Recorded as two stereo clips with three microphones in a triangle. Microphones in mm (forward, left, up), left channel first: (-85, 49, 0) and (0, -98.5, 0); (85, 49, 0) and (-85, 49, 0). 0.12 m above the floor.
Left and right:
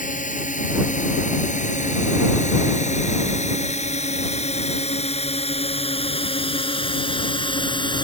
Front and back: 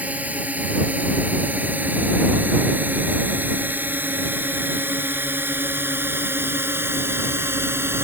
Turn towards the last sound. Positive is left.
turn(degrees=120)